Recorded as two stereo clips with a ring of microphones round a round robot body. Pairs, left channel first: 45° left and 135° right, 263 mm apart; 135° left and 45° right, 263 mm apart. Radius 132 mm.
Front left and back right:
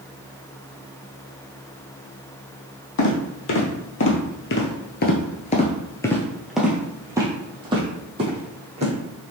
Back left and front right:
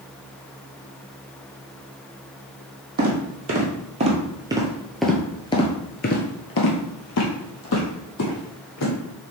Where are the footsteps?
5° left, 1.9 m; by 8.9 s 160° left, 2.5 m.